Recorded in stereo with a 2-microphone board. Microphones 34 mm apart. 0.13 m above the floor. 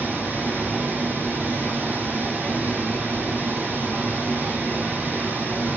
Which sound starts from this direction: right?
Running water, at 0.0 s.